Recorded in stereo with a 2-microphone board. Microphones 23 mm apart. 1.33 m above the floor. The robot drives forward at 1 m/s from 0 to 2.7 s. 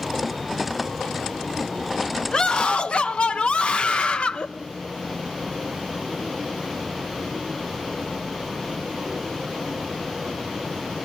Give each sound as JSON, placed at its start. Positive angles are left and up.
{"t": 2.3, "sound": "a scream", "side_deg": 40, "distance_m": 0.9}